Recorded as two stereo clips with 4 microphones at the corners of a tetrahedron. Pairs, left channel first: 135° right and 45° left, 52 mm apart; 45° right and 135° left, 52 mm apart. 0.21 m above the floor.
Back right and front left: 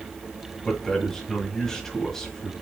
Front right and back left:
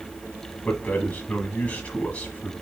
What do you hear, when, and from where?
0.6 s a man speaking: 65° right, 1.4 m